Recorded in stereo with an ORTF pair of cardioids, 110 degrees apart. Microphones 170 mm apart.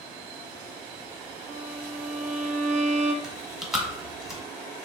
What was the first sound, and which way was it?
A violin, 45° right.